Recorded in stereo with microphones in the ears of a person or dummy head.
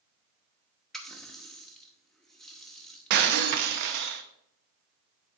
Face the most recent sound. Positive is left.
turn(degrees=-60)  # may be behind; listen again after turning